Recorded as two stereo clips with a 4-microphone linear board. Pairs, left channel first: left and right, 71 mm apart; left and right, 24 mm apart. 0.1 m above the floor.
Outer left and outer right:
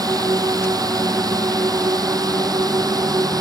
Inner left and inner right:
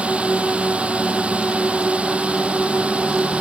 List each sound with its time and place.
0.0 s a drone: 60° right (ahead or behind)